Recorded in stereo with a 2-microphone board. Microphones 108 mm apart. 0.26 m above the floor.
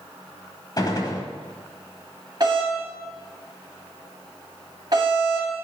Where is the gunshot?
40° left (ahead or behind), 1.1 m.